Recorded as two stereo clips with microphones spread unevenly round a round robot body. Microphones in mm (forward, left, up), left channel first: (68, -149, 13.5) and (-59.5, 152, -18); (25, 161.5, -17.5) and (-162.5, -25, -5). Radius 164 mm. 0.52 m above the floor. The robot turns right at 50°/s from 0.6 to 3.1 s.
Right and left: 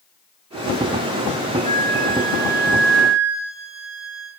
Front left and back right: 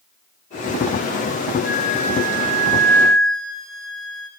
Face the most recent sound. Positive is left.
turn(degrees=130)